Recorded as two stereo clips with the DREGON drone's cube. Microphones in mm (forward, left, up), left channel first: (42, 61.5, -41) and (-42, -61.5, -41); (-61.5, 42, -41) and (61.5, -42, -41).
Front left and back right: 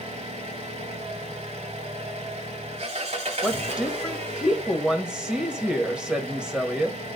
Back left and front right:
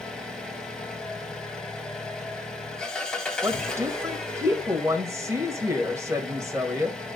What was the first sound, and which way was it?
An engine running, 130° right.